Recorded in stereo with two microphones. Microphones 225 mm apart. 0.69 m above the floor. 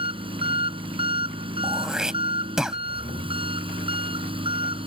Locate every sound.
0.0 s an engine running: 25° right (ahead or behind)
1.6 s throat clearing: 5° right (ahead or behind)